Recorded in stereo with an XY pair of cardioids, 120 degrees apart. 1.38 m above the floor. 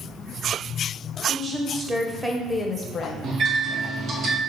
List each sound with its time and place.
1.3 s a woman speaking: 35° right, 1.0 m; by 3.1 s 50° left, 0.6 m
3.2 s a microwave: 55° right, 0.8 m